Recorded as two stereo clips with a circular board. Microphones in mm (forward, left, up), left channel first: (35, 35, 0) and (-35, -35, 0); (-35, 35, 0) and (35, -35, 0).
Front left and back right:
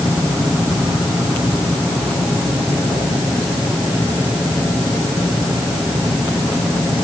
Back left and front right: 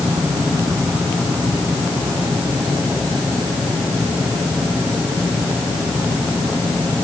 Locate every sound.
Only background noise.